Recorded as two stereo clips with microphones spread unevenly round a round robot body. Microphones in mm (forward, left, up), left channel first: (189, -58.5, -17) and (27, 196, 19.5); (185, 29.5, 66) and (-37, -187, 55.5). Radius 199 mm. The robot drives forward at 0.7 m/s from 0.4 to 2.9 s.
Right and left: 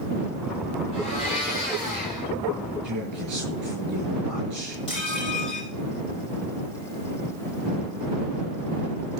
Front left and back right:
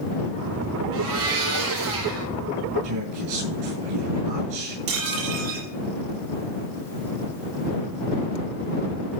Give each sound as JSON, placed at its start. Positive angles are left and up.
{"t": 0.9, "sound": "a blender", "azimuth_deg": -135, "distance_m": 8.0}
{"t": 2.8, "sound": "a man speaking", "azimuth_deg": -170, "distance_m": 7.5}
{"t": 4.9, "sound": "dishes clattering", "azimuth_deg": -135, "distance_m": 7.5}